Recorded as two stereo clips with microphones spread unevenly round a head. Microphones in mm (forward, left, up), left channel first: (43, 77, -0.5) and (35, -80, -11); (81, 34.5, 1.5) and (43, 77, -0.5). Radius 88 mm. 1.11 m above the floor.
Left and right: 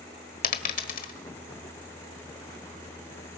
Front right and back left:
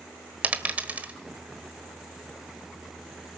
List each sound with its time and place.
0.4 s a dropped coin: 70° left, 1.4 m